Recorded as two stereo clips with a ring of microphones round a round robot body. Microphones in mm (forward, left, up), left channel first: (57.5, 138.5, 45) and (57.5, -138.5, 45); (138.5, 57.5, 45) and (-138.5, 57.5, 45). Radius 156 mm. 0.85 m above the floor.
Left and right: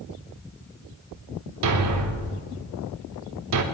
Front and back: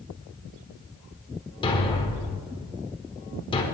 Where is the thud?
75° right, 1.2 m.